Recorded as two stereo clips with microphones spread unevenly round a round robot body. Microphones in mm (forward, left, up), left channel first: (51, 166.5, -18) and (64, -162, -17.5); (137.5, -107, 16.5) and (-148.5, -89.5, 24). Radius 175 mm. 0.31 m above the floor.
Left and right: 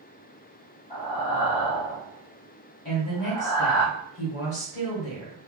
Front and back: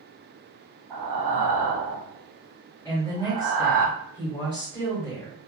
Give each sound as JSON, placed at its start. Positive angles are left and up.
{"t": 0.9, "sound": "breathing", "azimuth_deg": 170, "distance_m": 2.5}
{"t": 2.9, "sound": "a woman speaking", "azimuth_deg": 70, "distance_m": 1.8}